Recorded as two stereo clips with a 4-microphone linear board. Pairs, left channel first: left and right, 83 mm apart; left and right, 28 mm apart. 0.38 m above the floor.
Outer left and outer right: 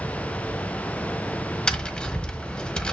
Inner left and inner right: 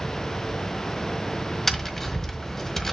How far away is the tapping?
About 1.4 m.